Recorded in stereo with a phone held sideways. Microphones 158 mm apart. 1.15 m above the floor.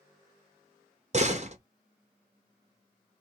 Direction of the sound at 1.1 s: 45° right (ahead or behind).